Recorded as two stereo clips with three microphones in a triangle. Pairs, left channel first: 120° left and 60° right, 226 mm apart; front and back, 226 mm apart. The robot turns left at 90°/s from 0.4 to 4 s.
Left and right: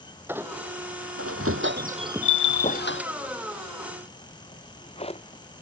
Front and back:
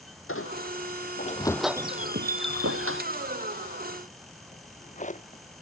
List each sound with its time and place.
0.3 s a squeak: 20° left; by 3.0 s 145° left
2.2 s a bell: 110° left; by 2.8 s 55° left
4.5 s a drawer: 55° left